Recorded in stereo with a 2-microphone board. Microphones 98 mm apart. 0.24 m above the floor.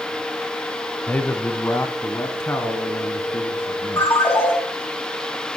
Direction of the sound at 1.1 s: 15° left (ahead or behind).